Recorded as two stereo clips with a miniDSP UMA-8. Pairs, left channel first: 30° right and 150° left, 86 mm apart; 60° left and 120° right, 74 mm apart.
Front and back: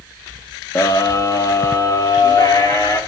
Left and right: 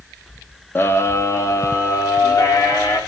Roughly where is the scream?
Ahead.